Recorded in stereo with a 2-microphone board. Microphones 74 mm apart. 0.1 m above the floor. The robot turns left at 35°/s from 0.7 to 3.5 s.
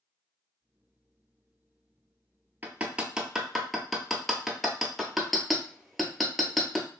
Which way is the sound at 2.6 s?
25° right (ahead or behind).